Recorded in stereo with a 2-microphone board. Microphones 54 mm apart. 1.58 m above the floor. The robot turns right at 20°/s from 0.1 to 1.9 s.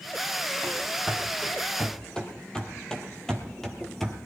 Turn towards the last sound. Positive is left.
turn(degrees=5)  # may be behind; listen again after turning